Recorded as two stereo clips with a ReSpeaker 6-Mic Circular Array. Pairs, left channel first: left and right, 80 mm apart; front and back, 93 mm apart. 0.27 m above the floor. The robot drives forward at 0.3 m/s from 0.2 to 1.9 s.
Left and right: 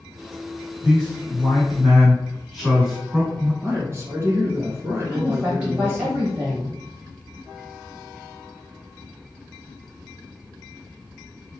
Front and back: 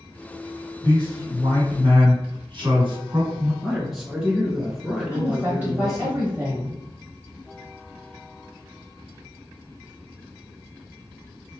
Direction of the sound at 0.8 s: 175° right.